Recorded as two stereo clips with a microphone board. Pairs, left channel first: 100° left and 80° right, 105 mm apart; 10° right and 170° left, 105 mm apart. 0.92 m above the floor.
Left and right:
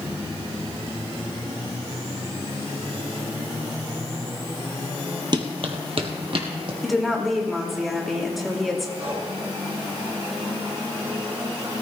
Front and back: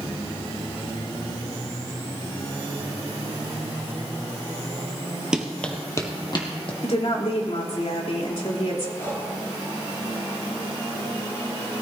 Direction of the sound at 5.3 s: 110° right.